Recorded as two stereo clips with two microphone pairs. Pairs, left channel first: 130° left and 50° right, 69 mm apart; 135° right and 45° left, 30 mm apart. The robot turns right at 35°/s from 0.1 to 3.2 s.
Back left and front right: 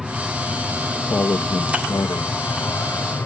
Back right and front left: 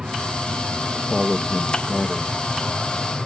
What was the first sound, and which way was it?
An aircraft, 30° left.